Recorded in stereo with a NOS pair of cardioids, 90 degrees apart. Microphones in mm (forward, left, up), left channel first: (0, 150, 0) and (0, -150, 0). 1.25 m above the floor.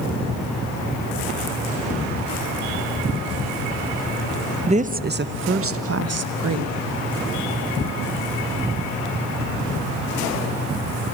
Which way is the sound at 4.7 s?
20° right.